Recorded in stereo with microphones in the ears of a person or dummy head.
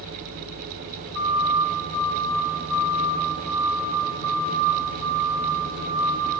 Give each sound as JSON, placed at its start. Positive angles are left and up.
{"t": 1.1, "sound": "a siren", "side_deg": -50, "distance_m": 4.5}